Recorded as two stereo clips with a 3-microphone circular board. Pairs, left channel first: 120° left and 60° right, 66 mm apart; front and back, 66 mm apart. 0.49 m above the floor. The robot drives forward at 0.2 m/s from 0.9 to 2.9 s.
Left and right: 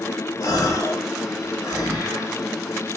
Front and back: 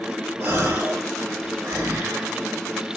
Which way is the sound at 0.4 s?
130° left.